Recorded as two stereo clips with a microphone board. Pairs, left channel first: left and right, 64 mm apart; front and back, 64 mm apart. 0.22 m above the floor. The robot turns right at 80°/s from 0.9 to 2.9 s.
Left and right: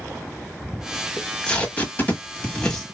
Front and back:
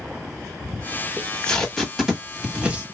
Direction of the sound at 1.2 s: 25° left.